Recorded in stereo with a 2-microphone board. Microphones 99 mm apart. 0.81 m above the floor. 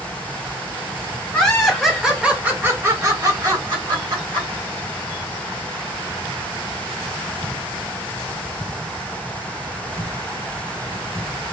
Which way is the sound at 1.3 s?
10° left (ahead or behind).